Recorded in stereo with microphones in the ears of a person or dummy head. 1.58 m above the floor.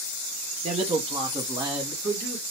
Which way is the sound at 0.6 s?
45° right (ahead or behind).